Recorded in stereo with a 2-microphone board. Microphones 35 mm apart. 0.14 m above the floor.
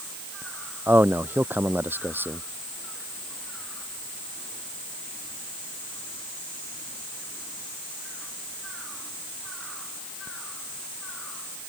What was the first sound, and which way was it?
A man speaking, 75° right (ahead or behind).